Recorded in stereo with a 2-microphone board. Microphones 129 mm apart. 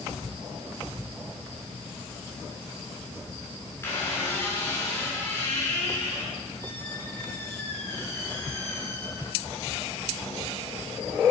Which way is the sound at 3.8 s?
25° left (ahead or behind).